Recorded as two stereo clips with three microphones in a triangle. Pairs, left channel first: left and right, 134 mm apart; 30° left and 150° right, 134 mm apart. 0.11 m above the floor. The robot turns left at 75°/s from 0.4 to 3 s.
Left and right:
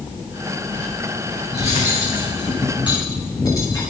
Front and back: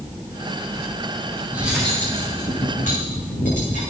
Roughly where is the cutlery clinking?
Behind left.